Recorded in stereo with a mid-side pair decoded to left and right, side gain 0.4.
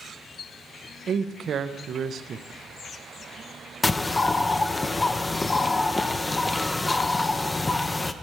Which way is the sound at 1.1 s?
60° right.